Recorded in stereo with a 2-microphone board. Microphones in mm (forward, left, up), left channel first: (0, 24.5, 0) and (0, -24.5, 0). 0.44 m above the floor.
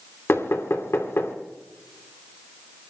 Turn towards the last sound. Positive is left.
turn(degrees=60)  # may be behind; listen again after turning